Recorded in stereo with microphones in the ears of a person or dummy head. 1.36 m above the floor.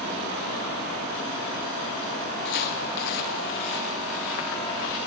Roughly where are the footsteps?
Left.